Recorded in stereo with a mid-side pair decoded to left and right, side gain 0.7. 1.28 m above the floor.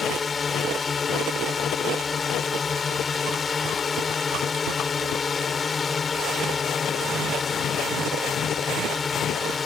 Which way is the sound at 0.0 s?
25° left.